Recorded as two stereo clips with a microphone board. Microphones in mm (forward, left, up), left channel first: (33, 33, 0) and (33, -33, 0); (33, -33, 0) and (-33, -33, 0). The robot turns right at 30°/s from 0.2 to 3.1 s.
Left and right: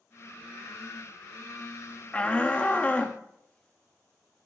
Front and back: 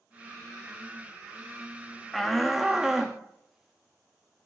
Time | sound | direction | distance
2.1 | a shout | 85° left | 0.5 m